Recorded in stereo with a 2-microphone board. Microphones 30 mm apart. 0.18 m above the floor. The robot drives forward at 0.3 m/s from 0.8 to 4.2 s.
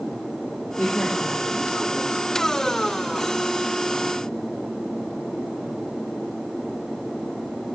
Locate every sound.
0.8 s a woman speaking: 75° left (ahead or behind), 6 m; by 2.3 s 70° left (ahead or behind), 6 m